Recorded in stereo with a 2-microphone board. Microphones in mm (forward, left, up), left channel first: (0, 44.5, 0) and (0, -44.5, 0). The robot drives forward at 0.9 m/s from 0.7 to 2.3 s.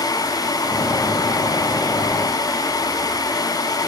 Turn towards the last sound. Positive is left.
No sound to turn to.